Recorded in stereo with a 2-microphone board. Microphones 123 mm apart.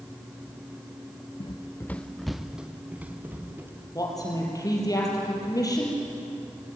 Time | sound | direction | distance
1.4 | running footsteps | 40° left (ahead or behind) | 0.7 m
4.0 | a woman speaking | 30° left (ahead or behind) | 6 m